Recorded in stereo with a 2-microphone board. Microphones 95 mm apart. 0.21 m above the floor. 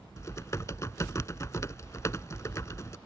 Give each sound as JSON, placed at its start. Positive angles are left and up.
{"t": 0.2, "sound": "typing on a keyboard", "side_deg": 30}